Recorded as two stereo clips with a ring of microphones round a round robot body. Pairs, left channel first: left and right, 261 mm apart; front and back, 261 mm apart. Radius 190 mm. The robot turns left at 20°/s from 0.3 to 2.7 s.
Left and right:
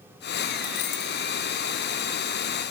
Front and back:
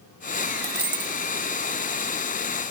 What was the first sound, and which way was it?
A dropped coin, 115° left.